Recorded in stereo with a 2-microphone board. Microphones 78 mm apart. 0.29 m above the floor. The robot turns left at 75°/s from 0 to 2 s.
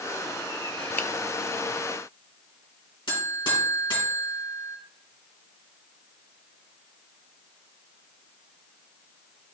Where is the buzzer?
70° left (ahead or behind), 3.5 m.